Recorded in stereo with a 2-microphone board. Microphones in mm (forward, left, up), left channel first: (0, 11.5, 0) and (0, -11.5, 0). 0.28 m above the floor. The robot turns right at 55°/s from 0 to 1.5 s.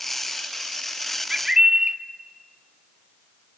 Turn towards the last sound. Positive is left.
turn(degrees=-25)  # may be behind; listen again after turning